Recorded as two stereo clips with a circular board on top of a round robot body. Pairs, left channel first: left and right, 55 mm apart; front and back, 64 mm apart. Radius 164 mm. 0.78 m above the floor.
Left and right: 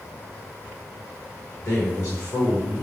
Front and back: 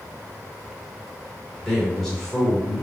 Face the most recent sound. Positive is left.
turn(degrees=80)